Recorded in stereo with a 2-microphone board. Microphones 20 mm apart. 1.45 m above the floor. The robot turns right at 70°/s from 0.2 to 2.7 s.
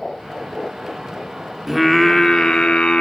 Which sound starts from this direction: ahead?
Singing, at 1.7 s.